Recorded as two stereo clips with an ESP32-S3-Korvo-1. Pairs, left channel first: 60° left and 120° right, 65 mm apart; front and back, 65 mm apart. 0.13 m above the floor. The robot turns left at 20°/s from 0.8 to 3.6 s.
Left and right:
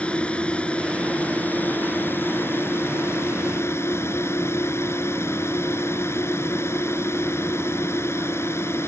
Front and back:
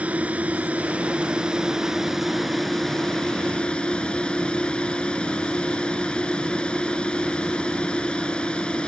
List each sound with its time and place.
0.0 s a drone: 125° left; by 8.9 s 70° left